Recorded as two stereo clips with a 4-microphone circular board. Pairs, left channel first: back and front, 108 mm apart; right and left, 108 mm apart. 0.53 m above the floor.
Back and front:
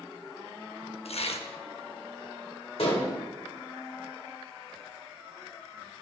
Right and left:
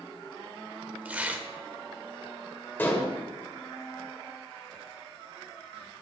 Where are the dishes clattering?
160° right, 1.2 m.